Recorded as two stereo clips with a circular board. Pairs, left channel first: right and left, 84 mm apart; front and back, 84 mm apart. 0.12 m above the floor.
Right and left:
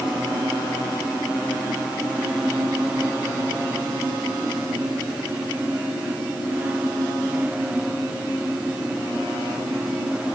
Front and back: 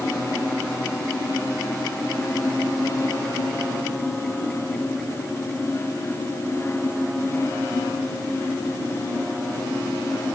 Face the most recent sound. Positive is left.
No sound to turn to.